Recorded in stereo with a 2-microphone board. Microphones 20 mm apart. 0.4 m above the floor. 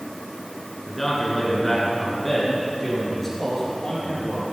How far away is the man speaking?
About 5 m.